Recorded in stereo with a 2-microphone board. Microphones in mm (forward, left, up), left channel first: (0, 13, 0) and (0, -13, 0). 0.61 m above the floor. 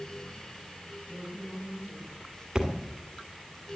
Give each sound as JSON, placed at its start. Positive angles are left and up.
{"t": 1.1, "sound": "a woman speaking", "side_deg": 70, "distance_m": 7.0}
{"t": 2.5, "sound": "a thud", "side_deg": -25, "distance_m": 1.8}